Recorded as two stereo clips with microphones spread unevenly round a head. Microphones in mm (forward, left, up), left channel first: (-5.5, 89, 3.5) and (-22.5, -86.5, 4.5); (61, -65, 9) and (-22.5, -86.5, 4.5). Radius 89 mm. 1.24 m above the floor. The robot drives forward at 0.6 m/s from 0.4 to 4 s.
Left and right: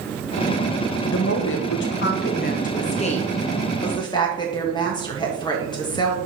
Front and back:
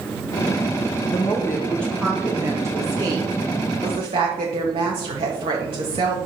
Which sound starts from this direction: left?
A woman speaking, at 1.1 s.